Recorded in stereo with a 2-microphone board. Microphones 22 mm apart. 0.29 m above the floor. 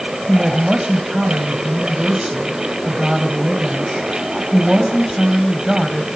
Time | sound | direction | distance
0.3 | a woman speaking | 30° right (ahead or behind) | 1.9 m